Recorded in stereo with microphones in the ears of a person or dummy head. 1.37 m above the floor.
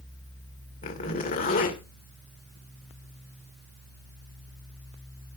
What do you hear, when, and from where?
0.8 s a zipper: 35° left (ahead or behind), 2 m